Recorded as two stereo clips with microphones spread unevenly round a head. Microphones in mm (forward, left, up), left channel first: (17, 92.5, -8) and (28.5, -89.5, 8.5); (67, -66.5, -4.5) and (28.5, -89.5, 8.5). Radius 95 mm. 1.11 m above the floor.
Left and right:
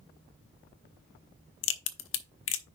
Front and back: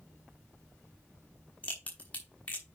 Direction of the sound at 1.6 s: 115° left.